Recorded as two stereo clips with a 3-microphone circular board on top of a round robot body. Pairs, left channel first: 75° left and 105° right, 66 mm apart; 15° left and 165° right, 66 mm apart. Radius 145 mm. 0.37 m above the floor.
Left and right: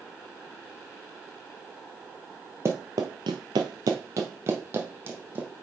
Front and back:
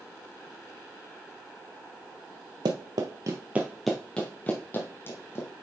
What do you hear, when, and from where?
2.6 s running footsteps: 160° right, 0.6 m; by 5.5 s 40° right, 1.3 m